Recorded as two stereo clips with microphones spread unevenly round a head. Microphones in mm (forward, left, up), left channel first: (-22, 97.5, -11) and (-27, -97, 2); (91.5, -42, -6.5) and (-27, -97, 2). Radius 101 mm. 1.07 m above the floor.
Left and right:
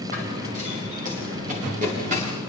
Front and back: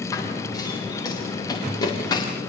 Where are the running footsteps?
40° right, 6.5 m; by 2.3 s 35° right, 8 m.